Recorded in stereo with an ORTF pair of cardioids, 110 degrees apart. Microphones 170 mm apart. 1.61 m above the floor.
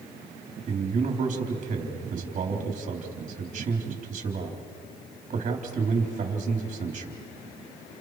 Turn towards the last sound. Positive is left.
turn(degrees=-45)